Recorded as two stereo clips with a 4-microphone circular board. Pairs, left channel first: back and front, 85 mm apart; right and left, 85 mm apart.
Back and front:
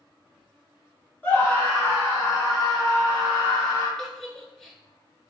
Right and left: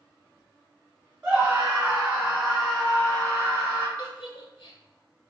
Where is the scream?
140° left, 1.5 m; by 3.9 s 175° right, 2.5 m.